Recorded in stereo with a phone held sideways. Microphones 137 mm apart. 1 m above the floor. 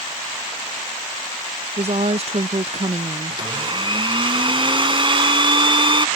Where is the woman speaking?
50° right (ahead or behind).